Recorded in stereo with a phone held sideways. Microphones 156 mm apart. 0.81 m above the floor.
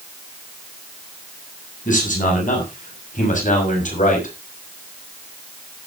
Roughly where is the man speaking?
Left.